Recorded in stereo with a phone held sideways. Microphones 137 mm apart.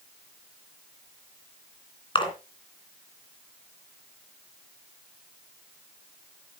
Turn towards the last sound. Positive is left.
turn(degrees=40)  # may be behind; listen again after turning